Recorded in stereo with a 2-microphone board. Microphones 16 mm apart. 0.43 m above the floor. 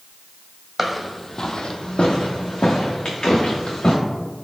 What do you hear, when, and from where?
0.8 s footsteps: 10° right (ahead or behind), 0.8 m; by 3.9 s 60° left (ahead or behind), 3 m